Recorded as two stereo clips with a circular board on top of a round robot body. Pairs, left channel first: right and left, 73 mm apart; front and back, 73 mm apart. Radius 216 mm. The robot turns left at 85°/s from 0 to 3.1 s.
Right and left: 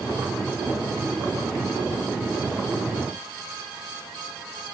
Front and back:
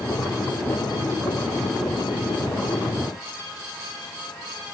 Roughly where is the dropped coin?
No dropped coin in this recording.